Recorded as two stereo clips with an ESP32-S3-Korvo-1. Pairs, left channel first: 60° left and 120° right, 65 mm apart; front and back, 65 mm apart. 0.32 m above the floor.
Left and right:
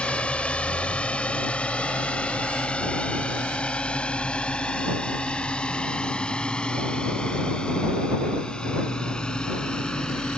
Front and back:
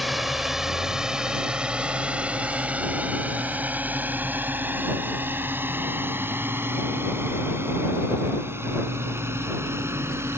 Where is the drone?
95° left; by 10.4 s 135° left.